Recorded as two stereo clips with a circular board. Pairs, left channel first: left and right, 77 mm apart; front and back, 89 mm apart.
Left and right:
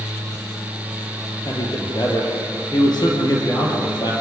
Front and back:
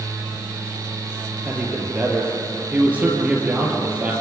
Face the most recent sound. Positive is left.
turn(degrees=110)